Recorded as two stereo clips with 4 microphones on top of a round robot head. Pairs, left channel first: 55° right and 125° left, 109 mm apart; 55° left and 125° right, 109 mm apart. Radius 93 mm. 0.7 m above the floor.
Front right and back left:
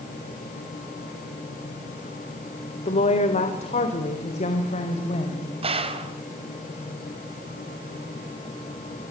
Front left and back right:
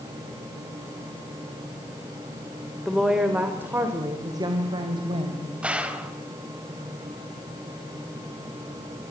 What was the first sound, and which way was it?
A woman speaking, 35° right.